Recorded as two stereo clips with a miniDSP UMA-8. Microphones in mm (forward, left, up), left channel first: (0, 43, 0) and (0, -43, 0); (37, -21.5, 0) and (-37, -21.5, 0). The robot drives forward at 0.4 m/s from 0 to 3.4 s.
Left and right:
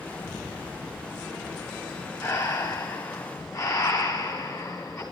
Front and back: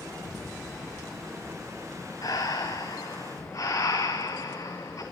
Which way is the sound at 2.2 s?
40° left.